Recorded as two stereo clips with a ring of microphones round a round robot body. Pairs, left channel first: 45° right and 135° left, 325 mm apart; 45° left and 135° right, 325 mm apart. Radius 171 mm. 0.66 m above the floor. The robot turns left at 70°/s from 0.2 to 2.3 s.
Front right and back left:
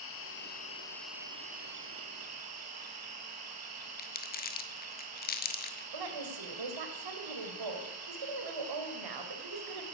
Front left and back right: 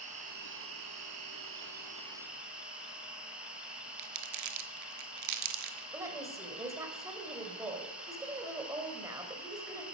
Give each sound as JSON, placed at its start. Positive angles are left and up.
{"t": 0.0, "sound": "an insect", "azimuth_deg": -75, "distance_m": 2.5}
{"t": 4.0, "sound": "crumpling", "azimuth_deg": -105, "distance_m": 1.4}
{"t": 5.9, "sound": "a woman speaking", "azimuth_deg": 145, "distance_m": 2.5}